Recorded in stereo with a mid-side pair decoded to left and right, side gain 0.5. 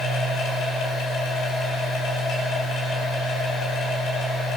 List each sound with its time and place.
0.0 s a machine running: 65° left, 9.5 m